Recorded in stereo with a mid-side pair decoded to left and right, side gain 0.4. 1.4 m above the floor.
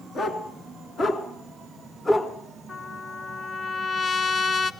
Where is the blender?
No blender in this recording.